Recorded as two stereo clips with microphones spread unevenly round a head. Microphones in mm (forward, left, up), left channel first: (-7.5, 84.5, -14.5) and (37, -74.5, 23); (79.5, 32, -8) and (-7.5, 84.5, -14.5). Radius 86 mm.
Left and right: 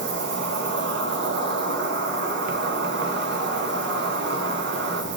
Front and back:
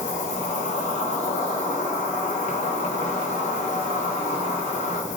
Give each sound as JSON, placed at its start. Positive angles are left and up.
{"t": 0.0, "sound": "an insect", "azimuth_deg": -55, "distance_m": 0.8}